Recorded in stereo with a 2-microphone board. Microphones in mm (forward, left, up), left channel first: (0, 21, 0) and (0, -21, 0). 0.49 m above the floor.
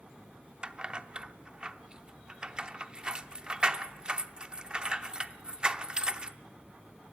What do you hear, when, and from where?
0.6 s keys jangling: 25° right (ahead or behind), 0.6 m